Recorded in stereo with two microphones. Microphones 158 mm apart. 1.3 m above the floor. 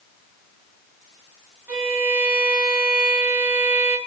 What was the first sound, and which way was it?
A violin, 10° right (ahead or behind).